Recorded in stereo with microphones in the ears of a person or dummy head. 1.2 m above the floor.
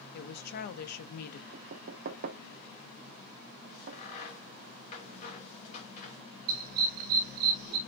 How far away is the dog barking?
About 1.2 m.